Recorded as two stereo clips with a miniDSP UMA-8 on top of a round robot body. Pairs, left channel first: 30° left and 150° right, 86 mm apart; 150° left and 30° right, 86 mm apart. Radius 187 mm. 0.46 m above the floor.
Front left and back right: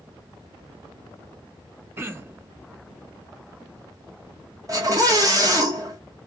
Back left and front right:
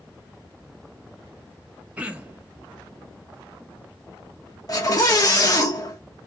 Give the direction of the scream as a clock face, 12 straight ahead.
6 o'clock.